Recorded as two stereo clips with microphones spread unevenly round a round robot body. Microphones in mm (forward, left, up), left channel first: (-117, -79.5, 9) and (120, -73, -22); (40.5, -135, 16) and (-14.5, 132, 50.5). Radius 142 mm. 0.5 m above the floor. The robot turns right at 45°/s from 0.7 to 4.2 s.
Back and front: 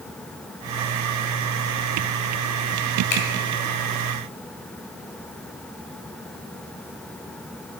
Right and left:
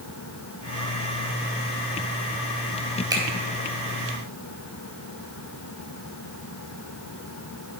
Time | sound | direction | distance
3.1 | a finger snap | straight behind | 2 m